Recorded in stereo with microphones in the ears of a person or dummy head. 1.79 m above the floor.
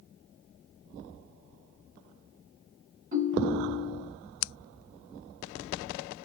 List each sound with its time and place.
3.1 s a ringtone: 45° right (ahead or behind), 1.3 m